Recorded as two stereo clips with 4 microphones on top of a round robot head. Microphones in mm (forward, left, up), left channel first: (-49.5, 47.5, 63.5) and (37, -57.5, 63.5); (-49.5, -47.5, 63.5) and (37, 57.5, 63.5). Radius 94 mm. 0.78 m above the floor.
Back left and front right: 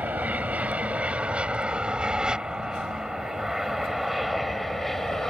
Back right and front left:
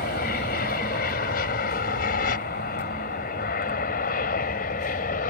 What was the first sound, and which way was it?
An aircraft, 130° right.